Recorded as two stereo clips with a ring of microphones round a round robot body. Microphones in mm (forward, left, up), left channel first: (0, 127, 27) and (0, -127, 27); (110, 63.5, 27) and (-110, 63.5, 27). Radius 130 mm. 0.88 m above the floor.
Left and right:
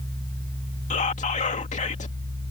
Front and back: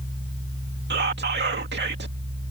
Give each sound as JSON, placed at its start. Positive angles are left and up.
{"t": 0.9, "sound": "whispering", "azimuth_deg": 150}